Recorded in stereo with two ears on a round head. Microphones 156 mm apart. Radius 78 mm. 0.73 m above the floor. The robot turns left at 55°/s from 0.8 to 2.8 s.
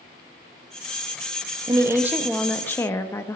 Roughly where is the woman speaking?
Behind right.